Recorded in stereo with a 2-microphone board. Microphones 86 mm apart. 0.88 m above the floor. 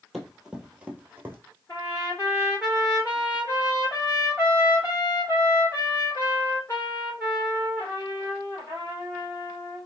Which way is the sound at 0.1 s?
Centre (ahead or behind).